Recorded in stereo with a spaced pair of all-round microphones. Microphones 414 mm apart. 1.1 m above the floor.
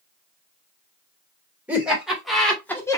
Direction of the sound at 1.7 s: 5° right (ahead or behind).